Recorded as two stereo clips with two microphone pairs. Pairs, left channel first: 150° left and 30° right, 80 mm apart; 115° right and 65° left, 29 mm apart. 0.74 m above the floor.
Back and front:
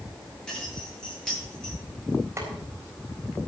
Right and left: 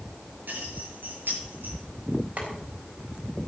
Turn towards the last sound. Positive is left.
turn(degrees=30)